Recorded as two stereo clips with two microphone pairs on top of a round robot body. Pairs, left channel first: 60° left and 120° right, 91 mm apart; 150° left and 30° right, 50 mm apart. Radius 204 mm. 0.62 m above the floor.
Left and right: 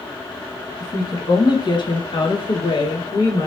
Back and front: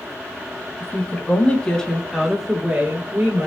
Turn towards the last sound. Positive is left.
turn(degrees=15)